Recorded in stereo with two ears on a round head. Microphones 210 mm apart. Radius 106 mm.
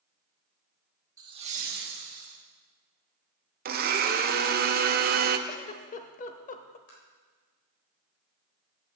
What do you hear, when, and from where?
1.2 s laughter: 15° right (ahead or behind), 1.3 m; by 2.4 s 60° right (ahead or behind), 1.8 m
3.6 s a blender: 40° right (ahead or behind), 0.6 m
5.5 s a giggle: 30° left (ahead or behind), 0.6 m
6.9 s tapping: 60° left (ahead or behind), 3.5 m